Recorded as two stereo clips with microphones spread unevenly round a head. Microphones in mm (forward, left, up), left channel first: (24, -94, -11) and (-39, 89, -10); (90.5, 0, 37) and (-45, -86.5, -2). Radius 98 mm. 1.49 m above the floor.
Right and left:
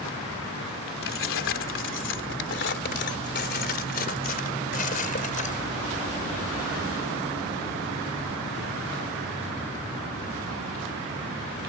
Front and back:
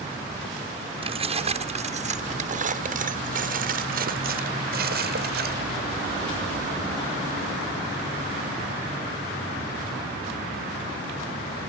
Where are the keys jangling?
90° right; by 5.6 s 125° right.